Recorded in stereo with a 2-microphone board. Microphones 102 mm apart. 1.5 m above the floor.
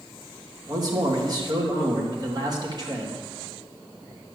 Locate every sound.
0.7 s a man speaking: 40° right (ahead or behind), 3 m